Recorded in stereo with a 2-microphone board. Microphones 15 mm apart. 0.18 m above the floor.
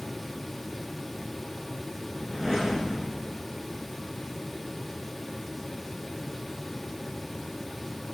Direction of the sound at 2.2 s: 30° left (ahead or behind).